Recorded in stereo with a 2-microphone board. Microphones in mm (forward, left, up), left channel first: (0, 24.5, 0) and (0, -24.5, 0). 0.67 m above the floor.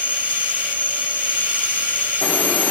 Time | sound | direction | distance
0.0 | an insect | 30° right (ahead or behind) | 0.8 m